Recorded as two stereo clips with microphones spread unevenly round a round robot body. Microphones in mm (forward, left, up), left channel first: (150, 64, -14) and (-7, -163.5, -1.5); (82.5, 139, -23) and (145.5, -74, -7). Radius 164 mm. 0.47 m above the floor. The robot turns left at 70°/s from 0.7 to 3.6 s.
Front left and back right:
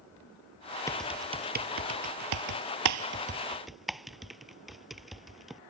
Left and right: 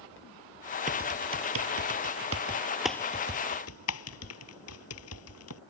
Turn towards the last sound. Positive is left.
turn(degrees=145)